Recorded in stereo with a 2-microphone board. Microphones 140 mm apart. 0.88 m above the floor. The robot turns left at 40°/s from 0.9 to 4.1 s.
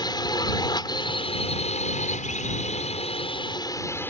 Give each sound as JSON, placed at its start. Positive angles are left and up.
{"t": 0.0, "sound": "a drone", "azimuth_deg": 145}